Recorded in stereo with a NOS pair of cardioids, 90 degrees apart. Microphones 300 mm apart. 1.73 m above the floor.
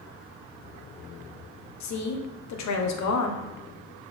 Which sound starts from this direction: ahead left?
A woman speaking, at 1.8 s.